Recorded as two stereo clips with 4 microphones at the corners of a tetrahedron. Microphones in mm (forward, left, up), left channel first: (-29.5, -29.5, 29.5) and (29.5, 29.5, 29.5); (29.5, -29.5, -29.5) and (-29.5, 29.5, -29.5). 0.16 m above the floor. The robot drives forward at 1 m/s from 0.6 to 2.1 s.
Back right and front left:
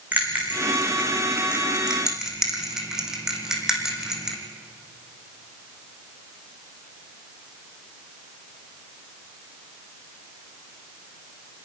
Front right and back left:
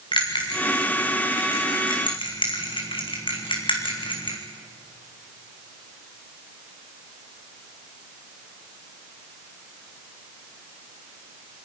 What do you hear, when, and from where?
0.1 s a bell: 25° right, 4 m; by 4.4 s 40° right, 2.5 m